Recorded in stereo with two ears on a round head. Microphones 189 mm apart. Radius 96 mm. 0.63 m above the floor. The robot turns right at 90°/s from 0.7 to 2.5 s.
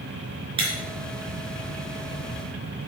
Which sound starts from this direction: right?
Breaking glass, at 0.6 s.